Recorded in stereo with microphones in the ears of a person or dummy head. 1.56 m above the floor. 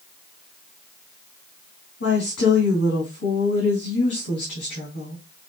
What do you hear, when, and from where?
2.0 s a woman speaking: 60° left (ahead or behind), 3 m